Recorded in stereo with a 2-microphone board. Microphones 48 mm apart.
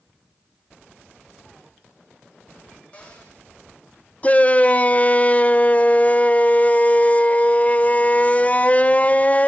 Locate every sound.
2.9 s a cupboard door: 25° left (ahead or behind), 9.5 m
4.2 s a shout: 30° left (ahead or behind), 1.0 m